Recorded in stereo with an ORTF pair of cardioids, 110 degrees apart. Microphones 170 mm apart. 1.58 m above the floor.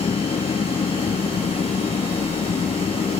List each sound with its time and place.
0.0 s an engine running: 35° left